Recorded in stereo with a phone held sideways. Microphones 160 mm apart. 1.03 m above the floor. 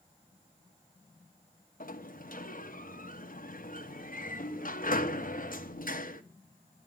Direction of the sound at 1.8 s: 60° left (ahead or behind).